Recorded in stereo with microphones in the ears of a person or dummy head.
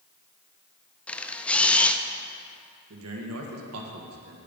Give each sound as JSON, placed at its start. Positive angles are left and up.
{"t": 1.1, "sound": "a camera shutter", "side_deg": 5, "distance_m": 0.5}
{"t": 2.9, "sound": "a man speaking", "side_deg": -75, "distance_m": 1.6}